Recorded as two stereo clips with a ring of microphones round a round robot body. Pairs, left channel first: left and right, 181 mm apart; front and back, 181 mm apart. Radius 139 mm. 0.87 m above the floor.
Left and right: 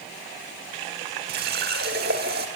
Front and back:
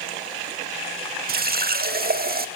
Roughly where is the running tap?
Behind right.